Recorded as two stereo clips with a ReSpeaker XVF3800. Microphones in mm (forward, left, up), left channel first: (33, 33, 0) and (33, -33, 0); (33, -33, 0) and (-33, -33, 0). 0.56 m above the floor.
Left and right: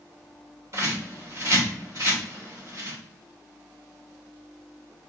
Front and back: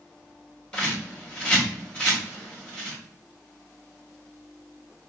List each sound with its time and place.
0.7 s a bird: 70° right, 1.9 m